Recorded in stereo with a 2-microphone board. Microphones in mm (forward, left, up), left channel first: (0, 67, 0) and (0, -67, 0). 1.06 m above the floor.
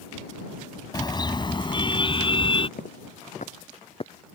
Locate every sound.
0.9 s a car horn: 30° left (ahead or behind); by 2.7 s 40° left (ahead or behind)
2.8 s footsteps: 70° left (ahead or behind); by 4.3 s 30° left (ahead or behind)